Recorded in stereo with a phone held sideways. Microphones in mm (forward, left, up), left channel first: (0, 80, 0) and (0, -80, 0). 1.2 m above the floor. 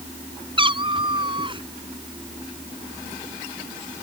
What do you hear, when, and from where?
0.6 s a cat meowing: 30° right (ahead or behind)